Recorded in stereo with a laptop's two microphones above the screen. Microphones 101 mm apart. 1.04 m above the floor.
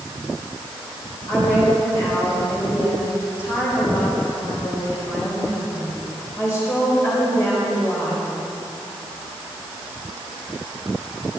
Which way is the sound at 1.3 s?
30° left (ahead or behind).